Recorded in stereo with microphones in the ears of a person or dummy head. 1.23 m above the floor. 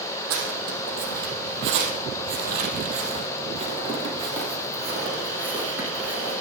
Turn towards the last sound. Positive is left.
turn(degrees=-10)  # may be behind; listen again after turning